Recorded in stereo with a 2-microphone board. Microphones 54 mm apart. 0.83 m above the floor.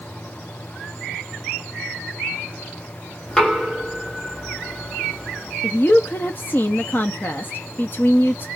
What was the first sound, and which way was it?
Knocking, 10° left (ahead or behind).